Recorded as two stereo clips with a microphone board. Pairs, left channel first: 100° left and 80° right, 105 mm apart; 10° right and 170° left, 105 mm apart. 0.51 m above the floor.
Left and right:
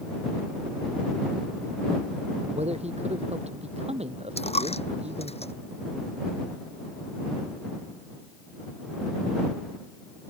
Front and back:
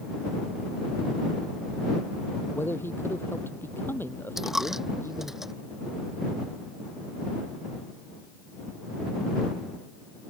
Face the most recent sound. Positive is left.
turn(degrees=85)